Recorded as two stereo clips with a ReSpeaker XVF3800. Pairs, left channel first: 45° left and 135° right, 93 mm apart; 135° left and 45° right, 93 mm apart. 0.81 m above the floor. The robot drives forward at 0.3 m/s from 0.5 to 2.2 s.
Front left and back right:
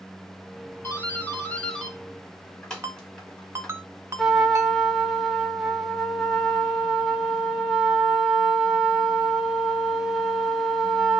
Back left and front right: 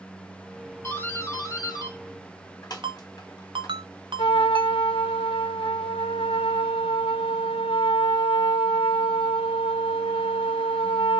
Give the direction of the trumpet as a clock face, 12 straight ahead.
7 o'clock.